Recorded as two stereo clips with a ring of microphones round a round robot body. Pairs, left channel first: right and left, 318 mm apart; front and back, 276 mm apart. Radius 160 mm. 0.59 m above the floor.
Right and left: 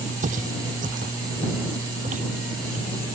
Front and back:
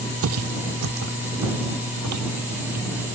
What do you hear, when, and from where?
0.2 s footsteps: 155° left; by 2.9 s 160° left